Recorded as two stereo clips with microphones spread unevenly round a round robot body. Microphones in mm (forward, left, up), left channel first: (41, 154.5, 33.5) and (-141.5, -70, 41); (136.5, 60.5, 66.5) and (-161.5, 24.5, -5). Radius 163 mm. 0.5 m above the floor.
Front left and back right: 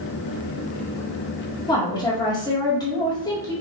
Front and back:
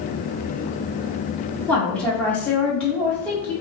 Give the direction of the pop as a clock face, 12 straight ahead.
I don't hear a pop.